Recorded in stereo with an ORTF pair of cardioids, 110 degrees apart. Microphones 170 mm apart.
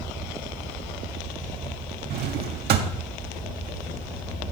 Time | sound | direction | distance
2.1 | a drawer | 70° right | 1.4 m